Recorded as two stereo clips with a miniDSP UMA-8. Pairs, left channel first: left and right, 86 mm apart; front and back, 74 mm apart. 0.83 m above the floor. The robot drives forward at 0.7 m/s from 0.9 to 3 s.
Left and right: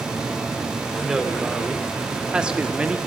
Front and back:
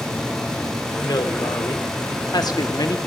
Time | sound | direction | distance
0.9 | a woman speaking | 5° right | 2.5 m